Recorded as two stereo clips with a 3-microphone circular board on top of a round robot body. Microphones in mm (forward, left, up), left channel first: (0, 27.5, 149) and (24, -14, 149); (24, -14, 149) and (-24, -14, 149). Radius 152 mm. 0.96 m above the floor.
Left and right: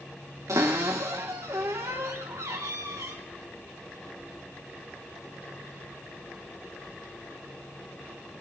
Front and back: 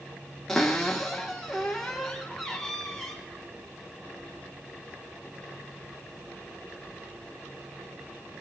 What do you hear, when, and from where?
0.5 s a cupboard door: 75° right, 0.6 m